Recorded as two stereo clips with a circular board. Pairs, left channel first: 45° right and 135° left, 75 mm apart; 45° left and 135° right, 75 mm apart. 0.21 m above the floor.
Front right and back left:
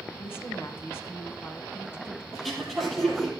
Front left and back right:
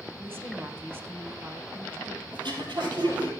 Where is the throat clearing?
130° right, 3.5 m.